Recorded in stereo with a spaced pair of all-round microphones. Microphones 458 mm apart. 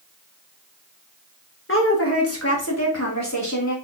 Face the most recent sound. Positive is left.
turn(degrees=40)  # may be behind; listen again after turning